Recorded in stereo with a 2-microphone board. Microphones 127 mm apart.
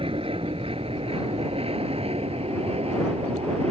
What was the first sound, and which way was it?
An aircraft, 45° right (ahead or behind).